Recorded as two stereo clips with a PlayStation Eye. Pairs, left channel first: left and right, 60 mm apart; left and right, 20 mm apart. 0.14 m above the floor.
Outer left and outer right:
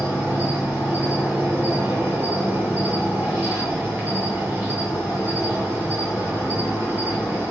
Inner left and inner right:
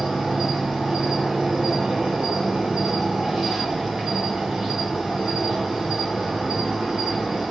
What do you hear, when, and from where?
0.0 s an insect: 35° right (ahead or behind), 1.4 m